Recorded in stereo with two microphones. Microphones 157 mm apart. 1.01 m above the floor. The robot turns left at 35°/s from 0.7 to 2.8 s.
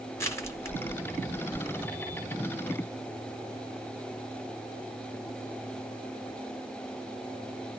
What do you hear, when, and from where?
0.2 s crushing: 15° left (ahead or behind), 0.8 m; by 1.9 s centre (ahead or behind), 0.8 m